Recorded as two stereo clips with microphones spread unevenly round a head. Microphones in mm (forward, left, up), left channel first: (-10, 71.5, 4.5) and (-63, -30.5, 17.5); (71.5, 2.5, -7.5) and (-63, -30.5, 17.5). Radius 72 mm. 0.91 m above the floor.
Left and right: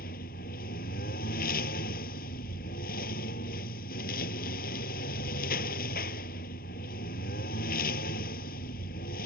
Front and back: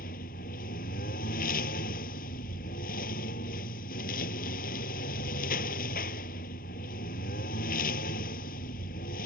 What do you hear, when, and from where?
0.0 s a lawn mower: 55° left